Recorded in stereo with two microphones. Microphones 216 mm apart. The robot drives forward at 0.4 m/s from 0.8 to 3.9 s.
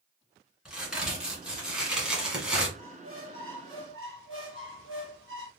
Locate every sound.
0.7 s a crack: 5° right (ahead or behind), 1.8 m
2.8 s a squeak: 75° right (ahead or behind), 1.1 m; by 5.5 s 70° right (ahead or behind), 1.1 m